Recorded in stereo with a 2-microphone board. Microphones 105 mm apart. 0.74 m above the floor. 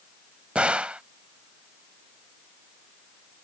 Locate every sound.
0.6 s a gunshot: 10° right (ahead or behind)